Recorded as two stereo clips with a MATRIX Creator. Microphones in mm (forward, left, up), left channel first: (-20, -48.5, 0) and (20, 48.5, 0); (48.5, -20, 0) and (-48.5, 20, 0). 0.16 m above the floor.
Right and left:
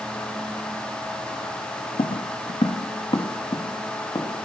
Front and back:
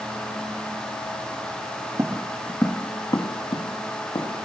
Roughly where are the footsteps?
Behind right.